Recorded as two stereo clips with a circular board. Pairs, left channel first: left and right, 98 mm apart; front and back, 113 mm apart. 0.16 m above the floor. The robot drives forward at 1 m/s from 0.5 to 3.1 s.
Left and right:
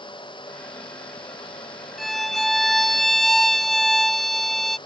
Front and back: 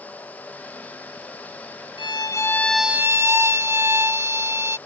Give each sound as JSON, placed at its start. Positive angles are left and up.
{"t": 2.0, "sound": "a violin", "azimuth_deg": 0}